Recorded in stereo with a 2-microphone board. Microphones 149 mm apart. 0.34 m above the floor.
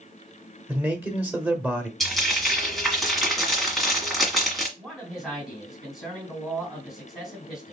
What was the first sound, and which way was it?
A man speaking, 10° right (ahead or behind).